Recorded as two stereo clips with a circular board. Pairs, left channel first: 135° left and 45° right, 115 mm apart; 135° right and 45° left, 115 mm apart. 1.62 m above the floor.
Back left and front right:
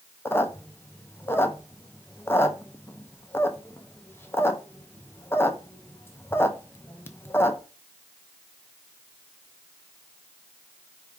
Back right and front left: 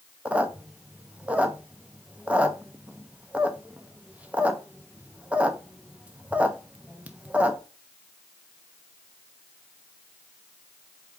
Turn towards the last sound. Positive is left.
turn(degrees=105)